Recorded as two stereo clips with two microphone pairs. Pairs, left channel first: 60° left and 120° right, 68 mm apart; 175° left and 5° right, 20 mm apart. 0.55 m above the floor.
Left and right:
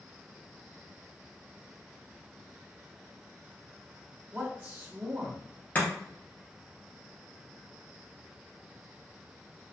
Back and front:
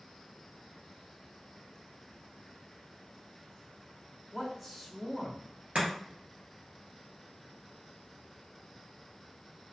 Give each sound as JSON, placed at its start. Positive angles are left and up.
{"t": 4.3, "sound": "a man speaking", "azimuth_deg": -95, "distance_m": 1.1}
{"t": 5.8, "sound": "chopping", "azimuth_deg": -5, "distance_m": 1.9}